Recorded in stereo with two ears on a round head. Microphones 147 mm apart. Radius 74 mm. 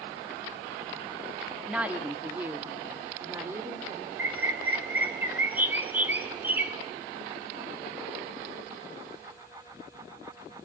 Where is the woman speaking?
5° right (ahead or behind), 1.4 m; by 4.1 s 15° right (ahead or behind), 2.5 m.